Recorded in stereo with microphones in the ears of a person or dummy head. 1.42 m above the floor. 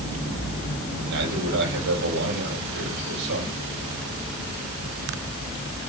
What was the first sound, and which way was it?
A man speaking, 60° right (ahead or behind).